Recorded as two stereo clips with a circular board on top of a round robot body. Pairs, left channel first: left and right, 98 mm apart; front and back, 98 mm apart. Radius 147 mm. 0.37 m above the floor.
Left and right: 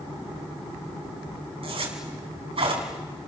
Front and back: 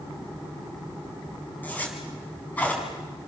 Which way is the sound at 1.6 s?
75° right.